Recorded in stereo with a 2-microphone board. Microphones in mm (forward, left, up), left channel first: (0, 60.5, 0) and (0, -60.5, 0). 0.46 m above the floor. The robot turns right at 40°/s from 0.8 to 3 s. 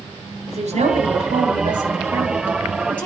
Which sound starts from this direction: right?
A woman speaking, at 0.5 s.